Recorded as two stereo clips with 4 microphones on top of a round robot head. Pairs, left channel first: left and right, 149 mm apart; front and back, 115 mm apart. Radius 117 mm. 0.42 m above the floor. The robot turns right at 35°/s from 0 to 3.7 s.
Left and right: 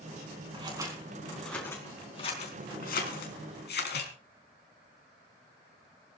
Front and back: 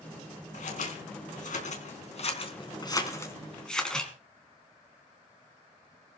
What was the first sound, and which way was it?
Scissors, 30° right.